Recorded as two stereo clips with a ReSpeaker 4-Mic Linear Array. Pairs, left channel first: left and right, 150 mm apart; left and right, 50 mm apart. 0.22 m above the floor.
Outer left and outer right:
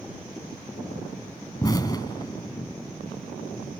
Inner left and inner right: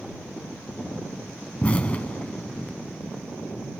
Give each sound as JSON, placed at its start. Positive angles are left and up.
{"t": 1.6, "sound": "an explosion", "side_deg": 25}